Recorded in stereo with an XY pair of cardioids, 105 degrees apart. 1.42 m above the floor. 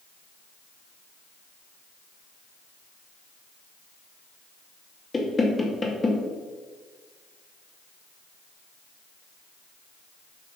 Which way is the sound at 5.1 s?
25° left.